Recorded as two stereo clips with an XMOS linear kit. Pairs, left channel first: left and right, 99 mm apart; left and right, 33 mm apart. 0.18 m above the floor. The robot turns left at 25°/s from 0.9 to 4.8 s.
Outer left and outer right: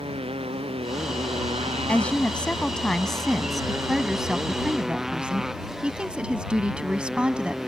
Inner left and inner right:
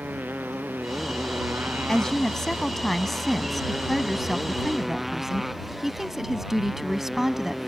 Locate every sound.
0.0 s a motorcycle: 75° right; by 7.7 s 175° right
1.9 s a woman speaking: 15° left (ahead or behind); by 7.7 s 10° right (ahead or behind)